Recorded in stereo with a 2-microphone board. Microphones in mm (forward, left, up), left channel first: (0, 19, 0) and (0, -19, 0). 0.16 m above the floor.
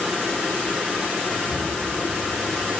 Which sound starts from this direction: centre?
Whispering, at 1.3 s.